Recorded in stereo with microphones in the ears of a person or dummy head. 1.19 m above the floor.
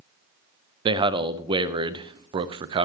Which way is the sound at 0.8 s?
25° right (ahead or behind).